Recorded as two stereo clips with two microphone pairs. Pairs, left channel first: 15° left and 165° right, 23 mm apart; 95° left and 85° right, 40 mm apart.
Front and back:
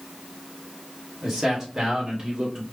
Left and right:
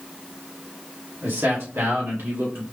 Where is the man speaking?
85° right, 3 m; by 2.6 s 105° right, 2 m.